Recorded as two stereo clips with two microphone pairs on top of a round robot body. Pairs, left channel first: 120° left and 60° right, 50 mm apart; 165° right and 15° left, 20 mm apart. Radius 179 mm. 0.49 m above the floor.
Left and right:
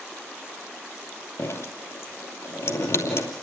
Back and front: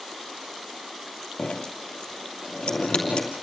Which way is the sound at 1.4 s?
150° left.